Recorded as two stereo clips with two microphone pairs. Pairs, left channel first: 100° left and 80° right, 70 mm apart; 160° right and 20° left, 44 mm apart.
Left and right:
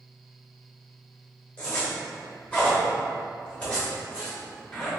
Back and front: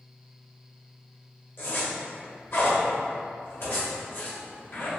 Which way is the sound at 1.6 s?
170° left.